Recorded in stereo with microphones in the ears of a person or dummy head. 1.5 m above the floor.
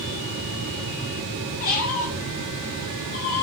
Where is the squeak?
35° left (ahead or behind), 0.8 m.